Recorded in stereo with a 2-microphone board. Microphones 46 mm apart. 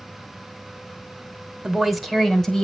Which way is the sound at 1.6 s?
15° right (ahead or behind).